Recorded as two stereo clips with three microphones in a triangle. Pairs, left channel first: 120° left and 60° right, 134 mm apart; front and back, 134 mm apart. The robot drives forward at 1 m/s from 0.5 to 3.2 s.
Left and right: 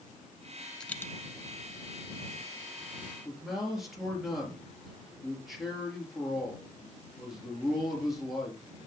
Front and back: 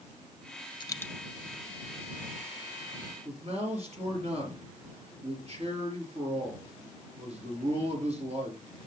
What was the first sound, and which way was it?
A dropped coin, 35° left.